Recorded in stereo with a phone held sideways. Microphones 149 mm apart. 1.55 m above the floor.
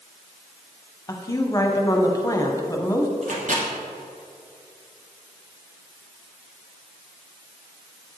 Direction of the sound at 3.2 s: 65° right (ahead or behind).